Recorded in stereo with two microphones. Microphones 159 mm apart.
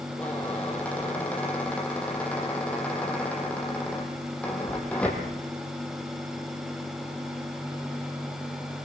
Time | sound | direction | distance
0.2 | a squeak | 10° left (ahead or behind) | 5 m